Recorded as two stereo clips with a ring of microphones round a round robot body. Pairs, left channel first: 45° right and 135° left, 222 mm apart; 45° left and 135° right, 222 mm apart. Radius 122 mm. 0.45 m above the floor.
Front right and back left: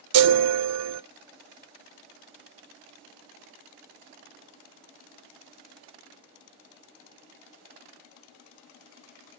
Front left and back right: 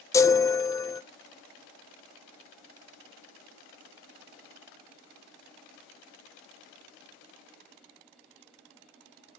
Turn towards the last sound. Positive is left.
turn(degrees=120)